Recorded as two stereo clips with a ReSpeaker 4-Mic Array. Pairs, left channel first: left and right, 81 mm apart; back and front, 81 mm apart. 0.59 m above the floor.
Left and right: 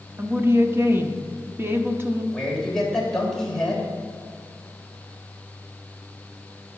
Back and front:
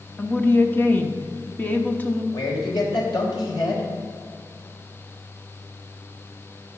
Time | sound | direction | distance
0.2 | a woman speaking | 130° right | 0.9 m
2.3 | a man speaking | 175° left | 3 m